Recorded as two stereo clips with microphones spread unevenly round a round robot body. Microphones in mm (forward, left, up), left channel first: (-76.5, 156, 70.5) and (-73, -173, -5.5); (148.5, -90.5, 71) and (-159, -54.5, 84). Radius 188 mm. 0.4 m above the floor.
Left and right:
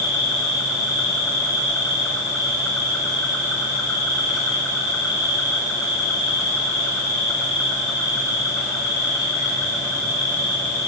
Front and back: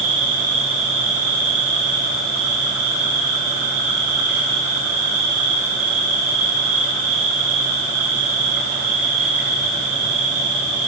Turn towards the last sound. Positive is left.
turn(degrees=175)